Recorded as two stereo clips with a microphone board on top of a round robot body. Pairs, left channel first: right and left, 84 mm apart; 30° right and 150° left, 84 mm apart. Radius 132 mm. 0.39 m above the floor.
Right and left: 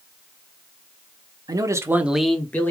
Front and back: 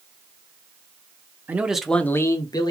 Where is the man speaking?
85° left, 1.1 m; by 2.7 s 30° right, 1.2 m.